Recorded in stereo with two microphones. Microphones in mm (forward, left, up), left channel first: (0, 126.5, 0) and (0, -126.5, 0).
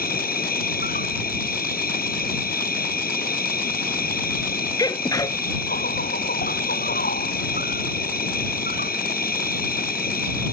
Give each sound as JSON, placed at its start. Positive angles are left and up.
{"t": 0.0, "sound": "an insect", "side_deg": 35}
{"t": 4.8, "sound": "a sneeze", "side_deg": 15}